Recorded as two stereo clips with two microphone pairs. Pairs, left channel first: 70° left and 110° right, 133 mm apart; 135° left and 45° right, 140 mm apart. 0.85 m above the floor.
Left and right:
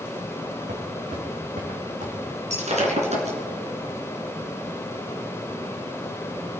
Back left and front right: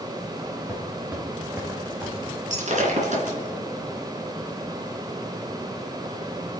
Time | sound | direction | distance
0.7 | footsteps | 120° right | 4.5 m
2.5 | breaking glass | 75° right | 3 m